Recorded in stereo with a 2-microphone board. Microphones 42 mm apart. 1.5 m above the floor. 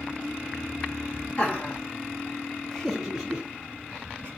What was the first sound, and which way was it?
Laughter, 40° left (ahead or behind).